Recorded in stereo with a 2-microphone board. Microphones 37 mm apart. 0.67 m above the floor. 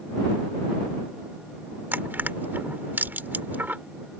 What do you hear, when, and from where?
1.9 s crushing: 65° right (ahead or behind)